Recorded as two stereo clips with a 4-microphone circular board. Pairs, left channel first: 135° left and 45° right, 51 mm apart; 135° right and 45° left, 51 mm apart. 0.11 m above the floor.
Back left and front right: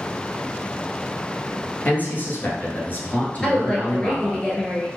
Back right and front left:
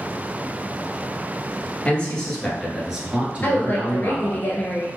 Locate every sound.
1.9 s a man speaking: 170° left, 1.5 m; by 4.4 s 70° left, 1.9 m
3.4 s a woman speaking: 160° right, 1.6 m